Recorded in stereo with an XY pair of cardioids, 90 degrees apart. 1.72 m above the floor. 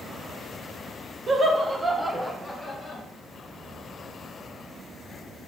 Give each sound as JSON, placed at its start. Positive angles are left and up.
{"t": 1.3, "sound": "laughter", "azimuth_deg": -50, "distance_m": 0.8}